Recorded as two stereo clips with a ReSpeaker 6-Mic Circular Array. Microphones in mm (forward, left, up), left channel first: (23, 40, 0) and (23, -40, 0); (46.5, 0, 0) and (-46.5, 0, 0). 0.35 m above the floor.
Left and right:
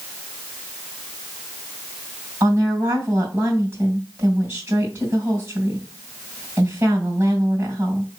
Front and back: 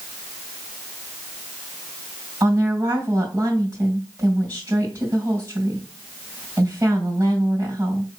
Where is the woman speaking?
120° right, 2 m.